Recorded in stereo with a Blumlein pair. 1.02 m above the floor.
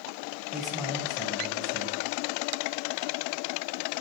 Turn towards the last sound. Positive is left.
turn(degrees=10)